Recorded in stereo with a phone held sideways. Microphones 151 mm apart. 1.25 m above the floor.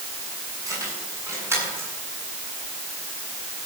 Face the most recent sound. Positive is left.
turn(degrees=-15)  # may be behind; listen again after turning